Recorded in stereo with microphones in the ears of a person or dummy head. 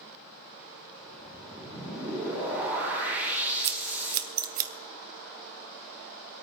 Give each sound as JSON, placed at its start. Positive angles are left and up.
{"t": 1.0, "sound": "a whoosh", "side_deg": -10, "distance_m": 6.0}
{"t": 3.6, "sound": "scissors", "side_deg": -50, "distance_m": 0.9}